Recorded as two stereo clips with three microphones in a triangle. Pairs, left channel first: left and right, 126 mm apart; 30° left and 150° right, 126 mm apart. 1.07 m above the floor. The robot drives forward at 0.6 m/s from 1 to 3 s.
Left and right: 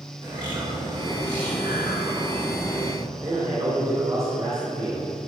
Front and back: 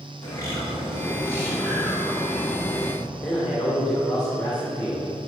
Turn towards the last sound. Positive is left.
turn(degrees=-45)